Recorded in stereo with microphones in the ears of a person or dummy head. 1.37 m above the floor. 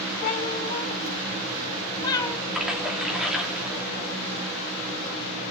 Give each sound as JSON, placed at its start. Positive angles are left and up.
{"t": 0.2, "sound": "a cat meowing", "side_deg": 45, "distance_m": 3.5}
{"t": 2.5, "sound": "a splash", "side_deg": -5, "distance_m": 2.5}